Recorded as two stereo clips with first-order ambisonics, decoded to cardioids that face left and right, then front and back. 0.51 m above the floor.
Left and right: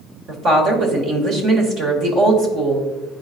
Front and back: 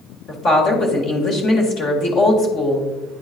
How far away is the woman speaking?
About 1.5 m.